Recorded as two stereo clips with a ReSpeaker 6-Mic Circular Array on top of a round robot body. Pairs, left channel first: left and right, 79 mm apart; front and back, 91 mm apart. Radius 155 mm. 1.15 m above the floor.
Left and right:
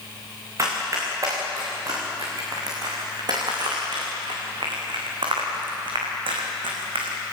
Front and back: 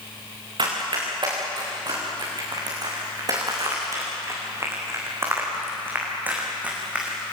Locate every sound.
0.6 s running footsteps: 145° right, 6.5 m; by 7.2 s 100° right, 4.5 m